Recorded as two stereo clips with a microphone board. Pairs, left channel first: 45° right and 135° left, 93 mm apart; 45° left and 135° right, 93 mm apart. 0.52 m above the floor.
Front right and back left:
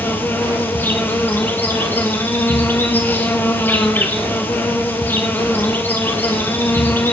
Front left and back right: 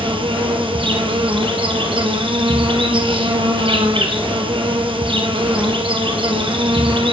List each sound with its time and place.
0.0 s an insect: 115° right, 2 m